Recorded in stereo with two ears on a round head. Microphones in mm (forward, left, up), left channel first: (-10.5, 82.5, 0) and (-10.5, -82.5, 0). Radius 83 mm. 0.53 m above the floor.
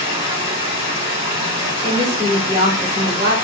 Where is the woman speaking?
30° right (ahead or behind), 0.8 m.